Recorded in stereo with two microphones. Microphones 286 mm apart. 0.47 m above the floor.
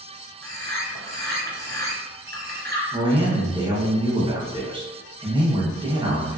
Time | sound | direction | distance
0.4 | a bird | 40° right (ahead or behind) | 1.0 m
2.9 | a man speaking | 15° right (ahead or behind) | 0.7 m